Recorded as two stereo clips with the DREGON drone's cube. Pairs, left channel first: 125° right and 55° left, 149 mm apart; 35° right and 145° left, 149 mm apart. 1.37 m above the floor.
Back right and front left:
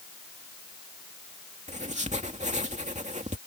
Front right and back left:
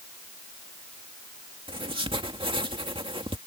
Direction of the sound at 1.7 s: 95° left.